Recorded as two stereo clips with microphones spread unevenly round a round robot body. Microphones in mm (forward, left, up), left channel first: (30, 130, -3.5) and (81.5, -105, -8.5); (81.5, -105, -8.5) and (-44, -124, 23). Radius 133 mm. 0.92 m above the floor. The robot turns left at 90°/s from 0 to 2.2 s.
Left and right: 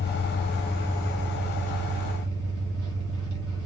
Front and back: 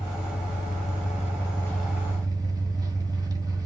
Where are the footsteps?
No footsteps in this recording.